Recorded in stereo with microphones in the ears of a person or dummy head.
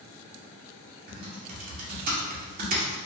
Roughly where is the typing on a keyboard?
Right.